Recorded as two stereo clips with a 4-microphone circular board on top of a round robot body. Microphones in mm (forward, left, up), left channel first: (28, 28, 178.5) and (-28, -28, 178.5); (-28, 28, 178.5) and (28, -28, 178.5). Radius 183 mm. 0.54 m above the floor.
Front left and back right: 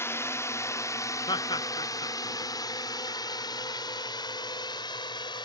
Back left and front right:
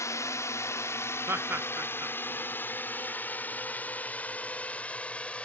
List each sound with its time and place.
0.0 s a drone: 95° left; by 5.5 s 60° left
1.3 s laughter: 15° left